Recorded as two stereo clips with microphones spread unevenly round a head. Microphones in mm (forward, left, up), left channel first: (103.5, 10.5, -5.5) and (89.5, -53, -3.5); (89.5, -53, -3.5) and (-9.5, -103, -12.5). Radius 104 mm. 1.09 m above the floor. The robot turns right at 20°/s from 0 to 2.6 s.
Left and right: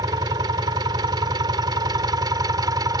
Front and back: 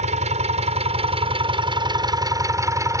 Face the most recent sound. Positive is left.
turn(degrees=-95)